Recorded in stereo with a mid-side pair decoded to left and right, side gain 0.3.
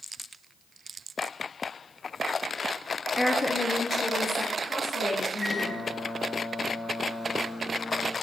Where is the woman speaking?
10° left, 1.0 m; by 5.9 s 80° left, 3 m.